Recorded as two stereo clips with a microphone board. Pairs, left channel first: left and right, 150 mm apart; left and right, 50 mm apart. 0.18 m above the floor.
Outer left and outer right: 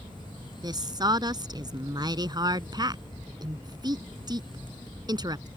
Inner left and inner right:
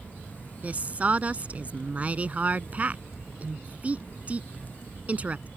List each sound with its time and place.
0.6 s a woman speaking: 30° right (ahead or behind)